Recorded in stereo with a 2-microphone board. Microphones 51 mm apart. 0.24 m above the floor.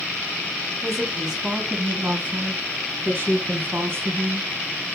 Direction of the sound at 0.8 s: 10° right (ahead or behind).